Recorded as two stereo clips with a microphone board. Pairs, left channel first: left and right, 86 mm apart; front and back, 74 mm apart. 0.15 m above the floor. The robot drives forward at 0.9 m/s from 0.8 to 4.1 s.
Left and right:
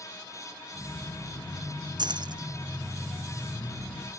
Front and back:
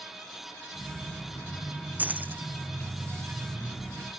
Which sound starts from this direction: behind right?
Keys jangling, at 2.0 s.